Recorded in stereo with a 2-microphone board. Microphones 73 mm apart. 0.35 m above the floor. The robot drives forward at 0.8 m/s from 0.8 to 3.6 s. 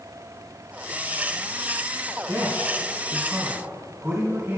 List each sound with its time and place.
2.2 s a man speaking: 25° right (ahead or behind), 4 m; by 4.6 s 30° right (ahead or behind), 3 m